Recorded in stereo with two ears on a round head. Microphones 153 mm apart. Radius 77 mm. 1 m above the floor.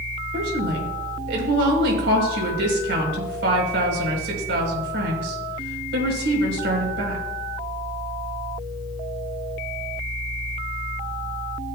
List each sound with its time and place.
0.3 s a woman speaking: 70° right (ahead or behind), 4.5 m